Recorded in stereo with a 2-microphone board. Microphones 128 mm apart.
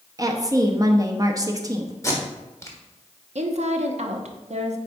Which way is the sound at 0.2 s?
30° right (ahead or behind).